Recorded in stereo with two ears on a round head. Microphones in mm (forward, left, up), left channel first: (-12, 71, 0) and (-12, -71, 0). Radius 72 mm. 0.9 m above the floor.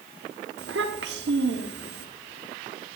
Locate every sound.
0.6 s a child speaking: 75° right (ahead or behind), 1.4 m